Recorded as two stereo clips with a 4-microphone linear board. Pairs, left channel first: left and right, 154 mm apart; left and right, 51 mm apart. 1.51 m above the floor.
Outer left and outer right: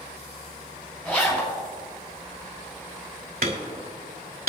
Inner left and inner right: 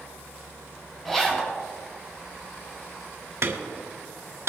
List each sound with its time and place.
1.1 s a zipper: 15° left (ahead or behind), 5.5 m
3.4 s hammering: 70° right (ahead or behind), 2.5 m